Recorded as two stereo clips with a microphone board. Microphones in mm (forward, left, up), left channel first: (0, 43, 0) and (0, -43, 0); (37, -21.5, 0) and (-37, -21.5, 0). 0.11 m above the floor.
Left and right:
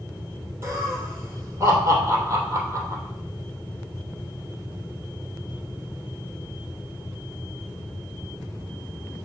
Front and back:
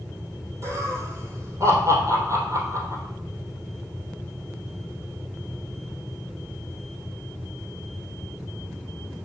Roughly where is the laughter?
Behind right.